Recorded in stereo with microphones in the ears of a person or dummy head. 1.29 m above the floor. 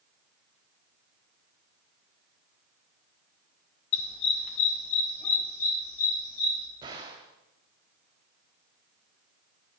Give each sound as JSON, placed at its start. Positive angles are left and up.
{"t": 3.9, "sound": "a dog barking", "side_deg": 35, "distance_m": 1.4}
{"t": 6.8, "sound": "a gunshot", "side_deg": -20, "distance_m": 1.6}